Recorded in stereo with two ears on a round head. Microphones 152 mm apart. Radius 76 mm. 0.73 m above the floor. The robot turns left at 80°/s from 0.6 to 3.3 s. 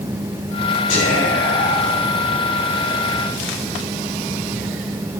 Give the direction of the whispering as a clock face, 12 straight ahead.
8 o'clock.